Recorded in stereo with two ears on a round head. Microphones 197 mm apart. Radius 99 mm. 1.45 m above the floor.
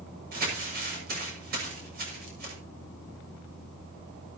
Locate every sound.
0.3 s crumpling: 45° right (ahead or behind), 6.5 m